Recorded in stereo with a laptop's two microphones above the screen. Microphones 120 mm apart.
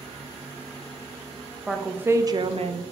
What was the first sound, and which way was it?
A woman speaking, 5° right (ahead or behind).